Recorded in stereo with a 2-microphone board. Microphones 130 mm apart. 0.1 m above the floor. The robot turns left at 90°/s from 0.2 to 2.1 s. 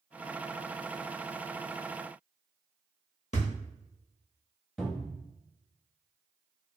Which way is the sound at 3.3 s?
55° left (ahead or behind).